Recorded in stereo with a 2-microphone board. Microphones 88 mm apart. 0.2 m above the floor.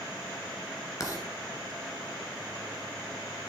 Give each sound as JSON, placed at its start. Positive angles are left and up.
{"t": 1.0, "sound": "writing", "side_deg": 35, "distance_m": 1.8}